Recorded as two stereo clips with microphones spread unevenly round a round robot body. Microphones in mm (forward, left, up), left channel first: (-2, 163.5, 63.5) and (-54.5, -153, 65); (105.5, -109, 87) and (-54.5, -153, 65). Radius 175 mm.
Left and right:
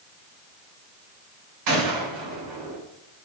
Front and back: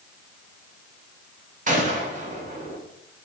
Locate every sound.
1.7 s a gunshot: 125° right, 2.5 m